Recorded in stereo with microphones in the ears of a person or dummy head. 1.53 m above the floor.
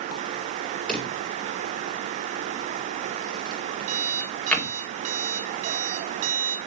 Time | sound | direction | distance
0.9 | a drawer | 5° left (ahead or behind) | 2 m
3.9 | an alarm clock | 40° right (ahead or behind) | 1.9 m